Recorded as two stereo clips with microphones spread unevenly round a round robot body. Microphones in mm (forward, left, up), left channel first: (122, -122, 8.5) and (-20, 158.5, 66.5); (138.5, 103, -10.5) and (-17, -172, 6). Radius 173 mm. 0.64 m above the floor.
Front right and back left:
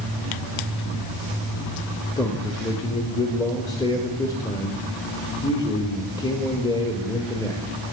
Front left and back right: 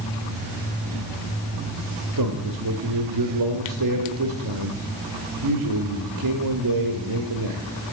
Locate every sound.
2.2 s a man speaking: 135° right, 1.0 m